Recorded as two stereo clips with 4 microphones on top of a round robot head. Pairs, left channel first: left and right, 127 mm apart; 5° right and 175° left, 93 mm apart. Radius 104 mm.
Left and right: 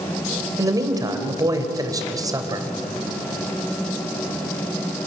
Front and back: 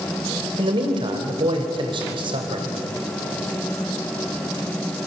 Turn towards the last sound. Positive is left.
turn(degrees=-150)